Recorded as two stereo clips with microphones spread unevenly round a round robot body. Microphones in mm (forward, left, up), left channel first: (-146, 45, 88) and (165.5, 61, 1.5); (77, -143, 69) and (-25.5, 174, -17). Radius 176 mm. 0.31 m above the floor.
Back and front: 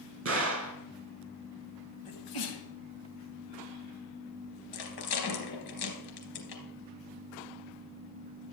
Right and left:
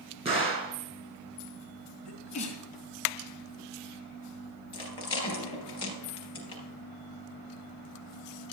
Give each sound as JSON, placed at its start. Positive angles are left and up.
{"t": 0.2, "sound": "a gunshot", "azimuth_deg": 40, "distance_m": 3.0}
{"t": 2.0, "sound": "a sneeze", "azimuth_deg": -150, "distance_m": 3.0}
{"t": 4.7, "sound": "a rattle", "azimuth_deg": -150, "distance_m": 3.5}